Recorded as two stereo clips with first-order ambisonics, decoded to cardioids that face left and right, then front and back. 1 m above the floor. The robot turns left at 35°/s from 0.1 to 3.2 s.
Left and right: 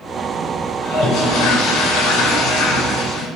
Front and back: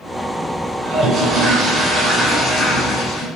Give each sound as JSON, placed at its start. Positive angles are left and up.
{"t": 0.8, "sound": "a toilet flushing", "azimuth_deg": 130, "distance_m": 2.0}